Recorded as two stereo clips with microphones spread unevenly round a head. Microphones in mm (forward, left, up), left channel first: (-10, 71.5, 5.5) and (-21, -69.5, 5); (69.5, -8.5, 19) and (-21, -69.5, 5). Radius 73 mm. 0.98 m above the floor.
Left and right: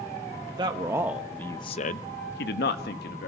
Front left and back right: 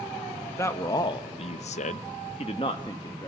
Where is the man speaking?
35° right, 1.3 m; by 3.3 s 100° left, 1.7 m.